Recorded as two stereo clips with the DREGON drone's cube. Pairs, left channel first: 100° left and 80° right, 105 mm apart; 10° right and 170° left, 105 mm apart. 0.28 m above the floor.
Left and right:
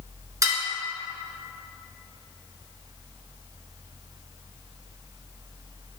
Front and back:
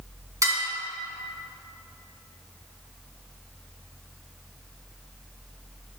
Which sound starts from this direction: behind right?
Dishes clattering, at 0.4 s.